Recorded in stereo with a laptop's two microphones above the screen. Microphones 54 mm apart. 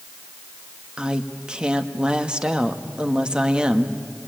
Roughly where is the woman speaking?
Centre.